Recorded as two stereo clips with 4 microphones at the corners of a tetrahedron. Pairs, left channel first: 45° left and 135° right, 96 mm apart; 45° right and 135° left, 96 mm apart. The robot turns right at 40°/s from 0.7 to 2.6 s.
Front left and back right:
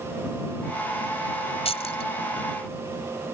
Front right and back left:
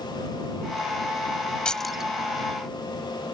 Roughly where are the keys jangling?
Ahead left.